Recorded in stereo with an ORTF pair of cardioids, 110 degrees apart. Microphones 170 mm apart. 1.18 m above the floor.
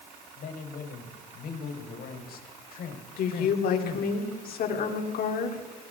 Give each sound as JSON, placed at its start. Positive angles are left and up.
{"t": 0.4, "sound": "a man speaking", "azimuth_deg": 60, "distance_m": 4.5}
{"t": 3.2, "sound": "a woman speaking", "azimuth_deg": 60, "distance_m": 3.5}